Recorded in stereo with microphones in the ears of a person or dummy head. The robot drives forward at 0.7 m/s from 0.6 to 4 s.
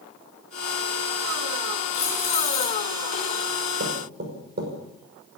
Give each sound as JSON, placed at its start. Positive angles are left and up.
{"t": 1.9, "sound": "keys jangling", "side_deg": 25, "distance_m": 9.0}
{"t": 3.8, "sound": "knocking", "side_deg": -50, "distance_m": 6.0}